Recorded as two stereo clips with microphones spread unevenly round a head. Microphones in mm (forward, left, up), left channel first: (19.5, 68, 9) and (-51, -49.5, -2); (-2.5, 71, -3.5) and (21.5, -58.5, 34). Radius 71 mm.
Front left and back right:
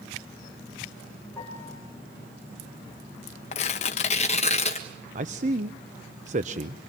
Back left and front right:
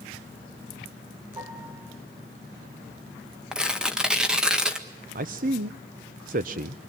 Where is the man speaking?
105° right, 0.7 m.